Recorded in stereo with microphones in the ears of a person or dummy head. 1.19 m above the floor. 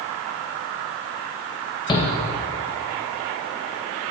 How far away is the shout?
About 1.4 m.